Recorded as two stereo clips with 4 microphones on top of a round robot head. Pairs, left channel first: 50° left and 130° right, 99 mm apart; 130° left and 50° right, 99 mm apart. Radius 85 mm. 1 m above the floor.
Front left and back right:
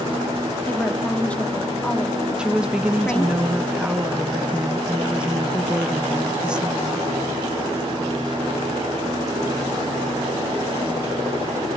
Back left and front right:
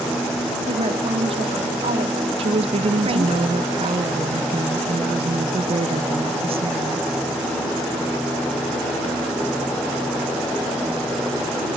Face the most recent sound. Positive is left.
turn(degrees=-50)